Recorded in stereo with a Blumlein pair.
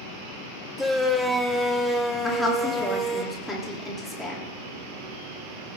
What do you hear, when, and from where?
0.8 s a shout: straight ahead, 1.7 m
2.2 s a woman speaking: 5° left, 3 m